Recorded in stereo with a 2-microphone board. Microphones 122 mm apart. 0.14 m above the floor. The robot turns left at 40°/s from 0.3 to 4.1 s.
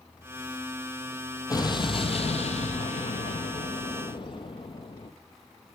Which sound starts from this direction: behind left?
An explosion, at 1.5 s.